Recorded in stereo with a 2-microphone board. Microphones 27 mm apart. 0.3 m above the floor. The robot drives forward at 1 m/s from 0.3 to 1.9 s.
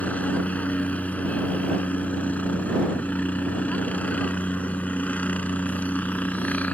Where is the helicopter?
60° left (ahead or behind); by 6.8 s 65° left (ahead or behind).